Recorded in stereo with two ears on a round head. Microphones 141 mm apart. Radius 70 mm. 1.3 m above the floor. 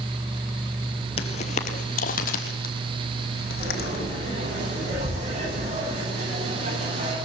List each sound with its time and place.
1.2 s footsteps: 40° left (ahead or behind), 1.6 m; by 4.0 s 70° left (ahead or behind), 4 m
3.6 s frying: 50° right (ahead or behind), 9.5 m